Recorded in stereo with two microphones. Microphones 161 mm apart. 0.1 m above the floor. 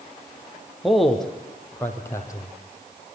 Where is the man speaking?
Centre (ahead or behind), 4 m; by 3.0 s 30° left (ahead or behind), 3.5 m.